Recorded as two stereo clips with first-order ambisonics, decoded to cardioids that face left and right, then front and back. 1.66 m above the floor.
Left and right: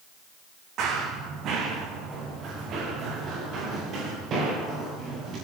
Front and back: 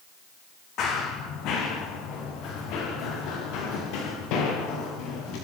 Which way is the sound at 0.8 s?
45° right.